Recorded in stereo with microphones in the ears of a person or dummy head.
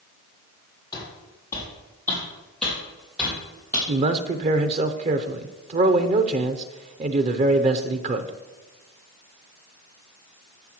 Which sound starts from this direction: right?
A man speaking, at 3.9 s.